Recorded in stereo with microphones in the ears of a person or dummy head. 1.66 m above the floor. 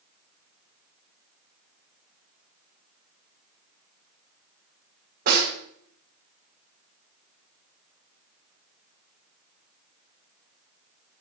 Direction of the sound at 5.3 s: 45° right (ahead or behind).